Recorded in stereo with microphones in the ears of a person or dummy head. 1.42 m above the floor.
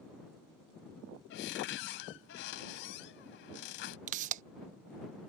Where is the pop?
40° right (ahead or behind).